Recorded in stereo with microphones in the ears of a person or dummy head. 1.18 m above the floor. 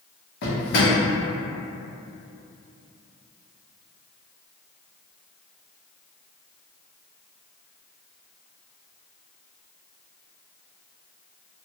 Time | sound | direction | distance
0.4 | a drawer | 65° left (ahead or behind) | 1.0 m